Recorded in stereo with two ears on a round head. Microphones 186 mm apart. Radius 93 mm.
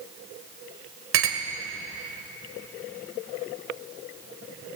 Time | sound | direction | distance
1.1 | a clink | 70° right (ahead or behind) | 2 m